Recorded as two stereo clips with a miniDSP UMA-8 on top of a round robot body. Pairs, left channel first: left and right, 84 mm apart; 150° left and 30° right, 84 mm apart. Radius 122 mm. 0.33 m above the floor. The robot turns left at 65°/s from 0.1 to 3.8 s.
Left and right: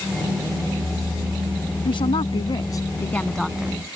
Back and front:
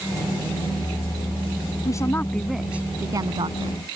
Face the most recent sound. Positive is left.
turn(degrees=-25)